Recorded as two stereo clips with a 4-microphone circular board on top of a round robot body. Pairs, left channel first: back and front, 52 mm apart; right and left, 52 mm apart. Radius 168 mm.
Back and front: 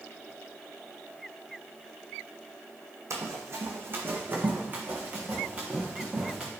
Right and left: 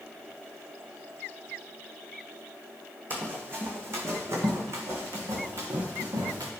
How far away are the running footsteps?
About 1.2 m.